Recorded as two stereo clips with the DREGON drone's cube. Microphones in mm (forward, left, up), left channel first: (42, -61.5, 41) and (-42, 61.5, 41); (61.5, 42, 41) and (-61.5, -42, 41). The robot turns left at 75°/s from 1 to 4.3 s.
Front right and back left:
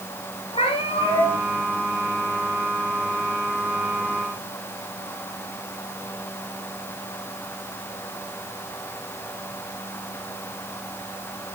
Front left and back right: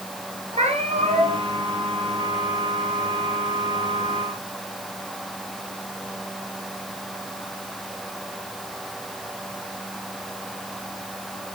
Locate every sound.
0.5 s a cat meowing: 105° right, 3 m; by 1.4 s 135° right, 3 m